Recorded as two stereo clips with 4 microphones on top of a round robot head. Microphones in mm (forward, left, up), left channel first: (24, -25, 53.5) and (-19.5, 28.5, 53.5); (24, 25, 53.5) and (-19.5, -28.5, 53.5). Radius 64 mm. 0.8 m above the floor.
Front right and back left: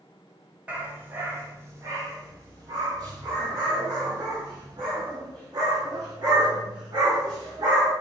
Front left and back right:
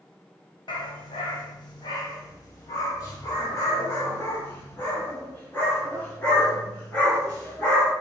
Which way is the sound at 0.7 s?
60° left.